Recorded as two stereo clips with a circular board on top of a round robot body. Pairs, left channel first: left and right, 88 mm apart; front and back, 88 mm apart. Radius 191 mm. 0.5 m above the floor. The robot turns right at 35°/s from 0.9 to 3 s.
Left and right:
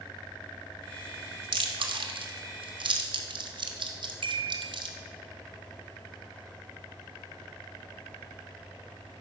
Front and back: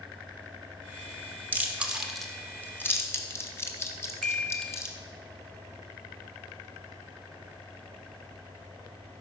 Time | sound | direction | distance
1.5 | chewing | 115° right | 1.5 m
4.2 | a chime | 85° right | 1.0 m